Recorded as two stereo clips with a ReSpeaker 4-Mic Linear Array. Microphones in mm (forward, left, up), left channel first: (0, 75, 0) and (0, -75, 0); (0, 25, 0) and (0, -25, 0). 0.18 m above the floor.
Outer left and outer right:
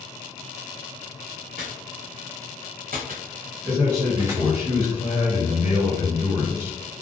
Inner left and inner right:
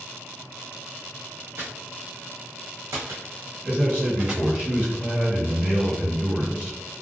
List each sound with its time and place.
1.6 s footsteps: 65° right (ahead or behind), 1.3 m; by 4.4 s 15° right (ahead or behind), 0.9 m
3.6 s a man speaking: 20° right (ahead or behind), 1.6 m